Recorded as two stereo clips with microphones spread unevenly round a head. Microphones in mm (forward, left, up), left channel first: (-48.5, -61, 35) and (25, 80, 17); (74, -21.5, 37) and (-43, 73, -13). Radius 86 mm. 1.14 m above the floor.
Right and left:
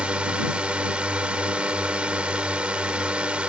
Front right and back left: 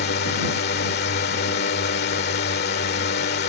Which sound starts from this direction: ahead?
A drone, at 0.0 s.